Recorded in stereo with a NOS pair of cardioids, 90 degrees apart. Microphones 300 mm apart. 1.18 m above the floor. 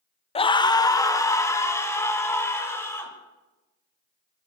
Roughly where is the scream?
Ahead.